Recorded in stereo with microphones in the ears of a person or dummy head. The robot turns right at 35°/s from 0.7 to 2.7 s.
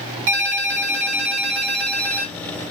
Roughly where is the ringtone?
Right.